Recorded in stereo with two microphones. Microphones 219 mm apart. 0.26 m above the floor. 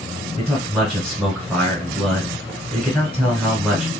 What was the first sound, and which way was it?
A man speaking, 5° right (ahead or behind).